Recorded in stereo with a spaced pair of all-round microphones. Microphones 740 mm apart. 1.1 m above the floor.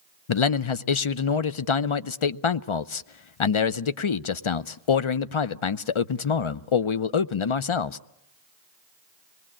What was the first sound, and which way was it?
A man speaking, 45° left (ahead or behind).